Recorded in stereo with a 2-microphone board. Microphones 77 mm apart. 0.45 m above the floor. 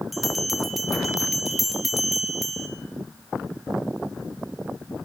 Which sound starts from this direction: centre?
A bell, at 0.1 s.